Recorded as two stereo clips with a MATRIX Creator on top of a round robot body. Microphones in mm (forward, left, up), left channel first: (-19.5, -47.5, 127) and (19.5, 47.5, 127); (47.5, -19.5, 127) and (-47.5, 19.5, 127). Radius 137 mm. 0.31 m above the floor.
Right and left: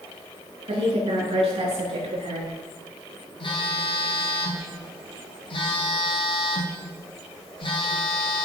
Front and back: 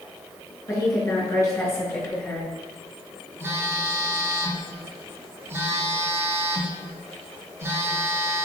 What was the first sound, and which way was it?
A woman speaking, 35° left.